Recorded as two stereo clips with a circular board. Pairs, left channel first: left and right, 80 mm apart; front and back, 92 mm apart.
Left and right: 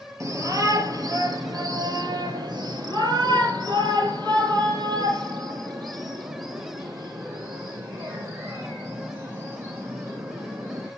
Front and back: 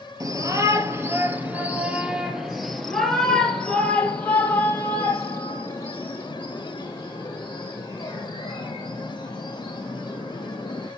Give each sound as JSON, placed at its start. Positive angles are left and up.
{"t": 0.2, "sound": "a shout", "azimuth_deg": -135, "distance_m": 2.0}